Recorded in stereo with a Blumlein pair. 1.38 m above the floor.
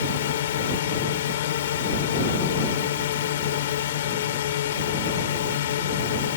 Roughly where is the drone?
Ahead left.